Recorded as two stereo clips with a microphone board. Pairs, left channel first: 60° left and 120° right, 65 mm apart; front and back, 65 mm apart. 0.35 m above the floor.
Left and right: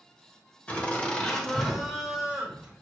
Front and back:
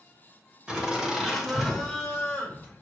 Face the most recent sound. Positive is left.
turn(degrees=-60)